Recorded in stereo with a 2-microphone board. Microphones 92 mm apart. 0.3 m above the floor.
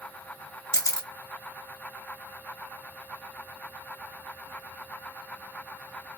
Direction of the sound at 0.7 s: 35° left (ahead or behind).